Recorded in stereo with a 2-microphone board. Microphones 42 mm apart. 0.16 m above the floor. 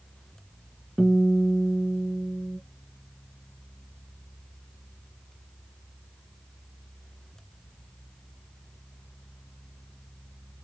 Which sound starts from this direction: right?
A guitar, at 1.0 s.